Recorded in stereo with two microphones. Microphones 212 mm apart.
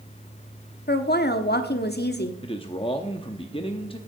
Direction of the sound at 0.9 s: 50° left (ahead or behind).